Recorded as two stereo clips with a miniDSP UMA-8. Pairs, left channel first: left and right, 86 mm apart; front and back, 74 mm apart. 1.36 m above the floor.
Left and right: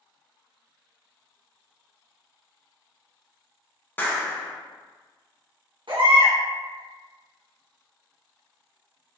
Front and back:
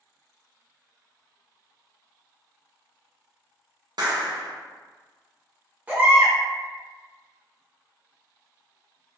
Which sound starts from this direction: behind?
A clap, at 4.0 s.